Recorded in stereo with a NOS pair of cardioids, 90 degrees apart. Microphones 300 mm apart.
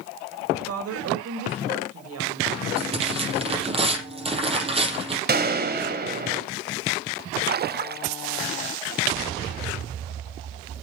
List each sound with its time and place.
0.5 s a woman speaking: 55° right, 4.5 m
2.8 s tearing paper: 20° right, 6 m
5.3 s a gunshot: 35° right, 2.5 m
7.5 s a splash: 35° right, 0.5 m